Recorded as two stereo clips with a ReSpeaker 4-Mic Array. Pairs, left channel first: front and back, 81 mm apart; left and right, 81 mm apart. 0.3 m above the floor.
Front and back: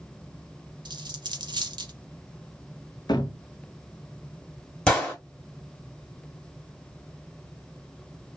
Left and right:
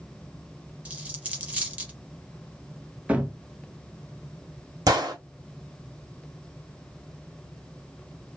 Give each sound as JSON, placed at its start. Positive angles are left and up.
{"t": 0.8, "sound": "a dropped coin", "azimuth_deg": -160, "distance_m": 0.7}
{"t": 3.1, "sound": "a cupboard door", "azimuth_deg": -20, "distance_m": 0.6}
{"t": 4.9, "sound": "a gunshot", "azimuth_deg": -75, "distance_m": 1.4}